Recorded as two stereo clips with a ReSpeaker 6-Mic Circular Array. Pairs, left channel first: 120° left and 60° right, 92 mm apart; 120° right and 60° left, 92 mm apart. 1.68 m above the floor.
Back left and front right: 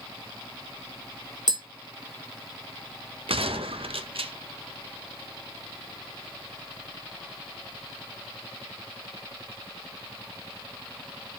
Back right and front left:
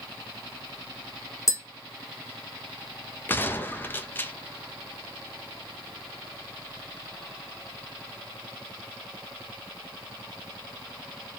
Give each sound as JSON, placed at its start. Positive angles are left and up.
{"t": 1.5, "sound": "tapping", "azimuth_deg": -70, "distance_m": 1.1}
{"t": 3.3, "sound": "a gunshot", "azimuth_deg": -50, "distance_m": 0.6}